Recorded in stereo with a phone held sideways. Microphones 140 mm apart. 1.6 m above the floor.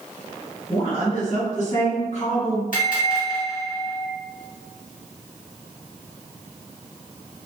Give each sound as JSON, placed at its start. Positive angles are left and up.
{"t": 0.7, "sound": "a woman speaking", "side_deg": 50, "distance_m": 1.3}
{"t": 2.7, "sound": "a bell", "side_deg": 70, "distance_m": 1.1}